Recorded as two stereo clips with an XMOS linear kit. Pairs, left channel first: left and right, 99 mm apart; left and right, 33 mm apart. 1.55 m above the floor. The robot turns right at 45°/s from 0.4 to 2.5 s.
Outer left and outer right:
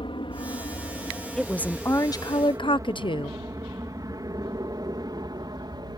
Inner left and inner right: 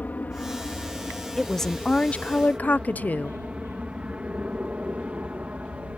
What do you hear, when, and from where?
0.0 s an aircraft: 60° left (ahead or behind); by 6.0 s 45° right (ahead or behind)
1.4 s a woman speaking: 5° left; by 3.4 s 55° left